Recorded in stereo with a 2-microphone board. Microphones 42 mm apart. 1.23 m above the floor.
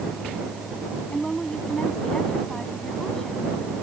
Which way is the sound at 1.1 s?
15° left (ahead or behind).